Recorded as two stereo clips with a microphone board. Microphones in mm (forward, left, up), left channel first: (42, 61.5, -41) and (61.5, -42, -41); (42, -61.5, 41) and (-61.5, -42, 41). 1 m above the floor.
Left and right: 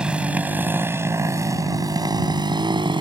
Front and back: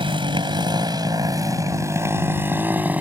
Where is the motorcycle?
160° right; by 3.0 s 115° right.